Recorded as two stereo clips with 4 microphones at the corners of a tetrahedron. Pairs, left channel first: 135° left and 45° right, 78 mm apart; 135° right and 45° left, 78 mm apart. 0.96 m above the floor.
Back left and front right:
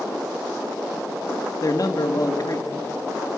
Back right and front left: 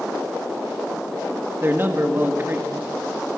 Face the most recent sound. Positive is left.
turn(degrees=100)